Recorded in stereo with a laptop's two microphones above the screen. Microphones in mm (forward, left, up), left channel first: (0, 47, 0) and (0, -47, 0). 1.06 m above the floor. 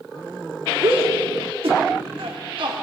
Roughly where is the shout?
Right.